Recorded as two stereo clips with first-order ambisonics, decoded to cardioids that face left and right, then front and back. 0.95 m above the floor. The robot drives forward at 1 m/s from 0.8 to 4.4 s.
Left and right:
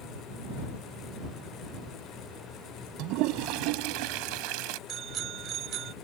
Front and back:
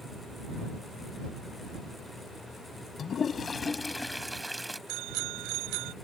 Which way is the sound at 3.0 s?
60° right.